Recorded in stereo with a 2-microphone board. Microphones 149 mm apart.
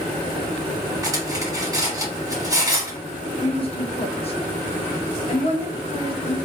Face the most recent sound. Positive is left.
turn(degrees=40)  # may be behind; listen again after turning